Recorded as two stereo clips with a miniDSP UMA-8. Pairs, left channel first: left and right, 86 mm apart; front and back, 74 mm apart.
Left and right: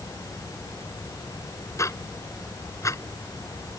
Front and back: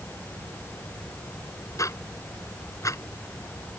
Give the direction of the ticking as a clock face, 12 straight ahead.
11 o'clock.